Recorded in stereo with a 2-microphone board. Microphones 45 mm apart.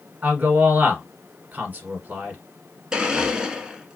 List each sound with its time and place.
0.2 s a man speaking: 35° right (ahead or behind), 1.5 m
2.9 s a blender: 15° right (ahead or behind), 0.8 m